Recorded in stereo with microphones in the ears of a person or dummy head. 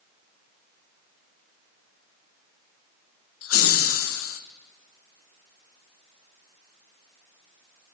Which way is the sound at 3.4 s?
70° left (ahead or behind).